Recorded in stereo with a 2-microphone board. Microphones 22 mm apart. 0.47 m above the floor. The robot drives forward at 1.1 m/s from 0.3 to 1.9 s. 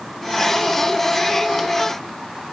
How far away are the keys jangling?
I don't hear keys jangling.